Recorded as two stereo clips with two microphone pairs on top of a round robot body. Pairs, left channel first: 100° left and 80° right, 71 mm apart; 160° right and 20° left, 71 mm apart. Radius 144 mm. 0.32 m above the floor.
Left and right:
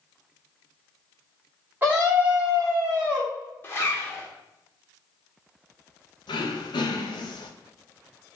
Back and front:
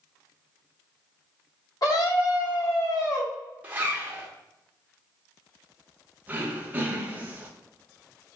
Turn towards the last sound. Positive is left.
turn(degrees=90)